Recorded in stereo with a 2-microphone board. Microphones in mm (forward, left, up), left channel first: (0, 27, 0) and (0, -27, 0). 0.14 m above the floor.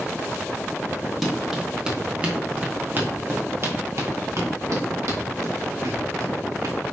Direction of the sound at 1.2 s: 5° right (ahead or behind).